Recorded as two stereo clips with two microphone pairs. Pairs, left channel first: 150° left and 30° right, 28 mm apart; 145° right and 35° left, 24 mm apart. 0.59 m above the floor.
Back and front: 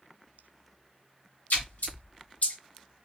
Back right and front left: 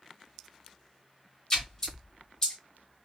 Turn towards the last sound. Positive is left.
turn(degrees=150)